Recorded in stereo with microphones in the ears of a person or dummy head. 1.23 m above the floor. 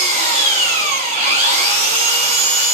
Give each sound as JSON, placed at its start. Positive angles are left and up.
{"t": 0.0, "sound": "an engine running", "side_deg": -45, "distance_m": 3.5}